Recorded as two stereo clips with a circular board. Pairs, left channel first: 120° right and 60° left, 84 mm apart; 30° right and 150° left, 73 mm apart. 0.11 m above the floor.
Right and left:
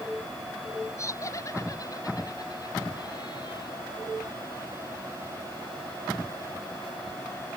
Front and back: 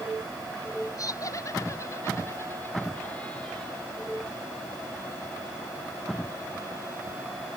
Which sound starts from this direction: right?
Laughter, at 1.0 s.